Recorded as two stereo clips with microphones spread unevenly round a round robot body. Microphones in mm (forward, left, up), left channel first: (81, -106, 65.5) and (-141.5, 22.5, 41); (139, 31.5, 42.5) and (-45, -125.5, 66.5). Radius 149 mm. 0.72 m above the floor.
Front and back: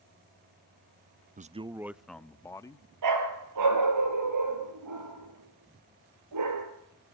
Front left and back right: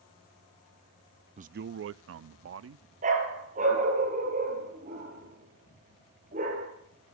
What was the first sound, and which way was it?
A man speaking, 170° left.